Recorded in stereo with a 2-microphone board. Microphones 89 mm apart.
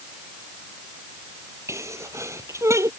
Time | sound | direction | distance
1.7 | a sneeze | 30° right (ahead or behind) | ?